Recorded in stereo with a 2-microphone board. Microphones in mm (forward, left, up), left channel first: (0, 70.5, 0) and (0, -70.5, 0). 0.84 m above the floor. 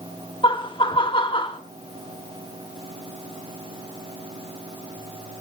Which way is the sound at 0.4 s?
35° left (ahead or behind).